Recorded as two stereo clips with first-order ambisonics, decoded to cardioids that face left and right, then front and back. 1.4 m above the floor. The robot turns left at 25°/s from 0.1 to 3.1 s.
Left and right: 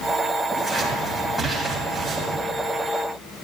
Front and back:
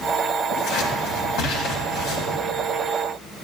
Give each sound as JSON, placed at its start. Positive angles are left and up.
{"t": 0.5, "sound": "scissors", "azimuth_deg": 20, "distance_m": 1.9}